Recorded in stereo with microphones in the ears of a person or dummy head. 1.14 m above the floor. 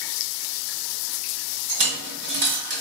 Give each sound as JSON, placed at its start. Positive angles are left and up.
{"t": 1.7, "sound": "a dropped coin", "side_deg": -55, "distance_m": 2.0}